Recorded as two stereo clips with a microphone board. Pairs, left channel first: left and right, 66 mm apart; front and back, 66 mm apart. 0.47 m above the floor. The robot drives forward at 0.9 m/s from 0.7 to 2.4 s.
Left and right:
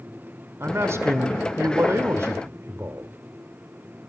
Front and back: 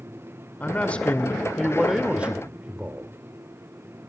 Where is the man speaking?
60° right, 2 m; by 3.1 s 120° right, 2.0 m.